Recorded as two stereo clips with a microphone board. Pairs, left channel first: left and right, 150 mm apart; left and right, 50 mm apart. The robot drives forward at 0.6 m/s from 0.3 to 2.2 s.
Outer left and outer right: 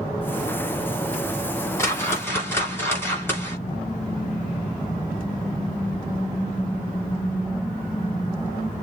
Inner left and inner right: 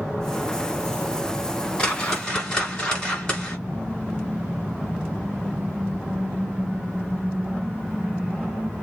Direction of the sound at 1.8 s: 20° left (ahead or behind).